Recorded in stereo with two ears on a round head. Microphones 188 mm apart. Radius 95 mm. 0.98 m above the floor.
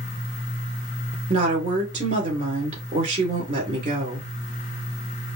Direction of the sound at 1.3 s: 35° right (ahead or behind).